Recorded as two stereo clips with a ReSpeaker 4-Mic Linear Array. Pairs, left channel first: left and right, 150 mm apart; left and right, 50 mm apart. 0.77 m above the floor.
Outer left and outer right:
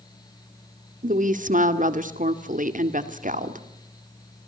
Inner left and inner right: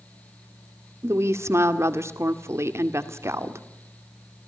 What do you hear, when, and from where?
1.0 s a woman speaking: 60° right (ahead or behind), 2 m